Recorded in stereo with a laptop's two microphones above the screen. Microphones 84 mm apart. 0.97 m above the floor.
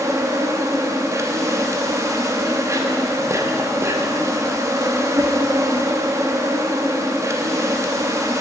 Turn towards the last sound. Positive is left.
turn(degrees=-35)  # may be behind; listen again after turning